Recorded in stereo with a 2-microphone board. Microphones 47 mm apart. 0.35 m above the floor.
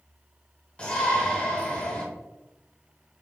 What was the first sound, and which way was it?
A shout, 20° left (ahead or behind).